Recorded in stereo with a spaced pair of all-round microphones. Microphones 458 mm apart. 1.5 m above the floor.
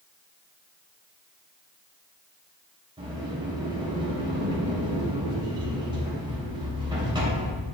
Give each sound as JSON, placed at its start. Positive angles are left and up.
{"t": 3.0, "sound": "a sliding door", "side_deg": -10, "distance_m": 3.0}